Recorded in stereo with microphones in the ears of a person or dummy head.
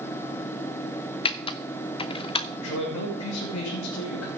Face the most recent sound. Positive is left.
turn(degrees=80)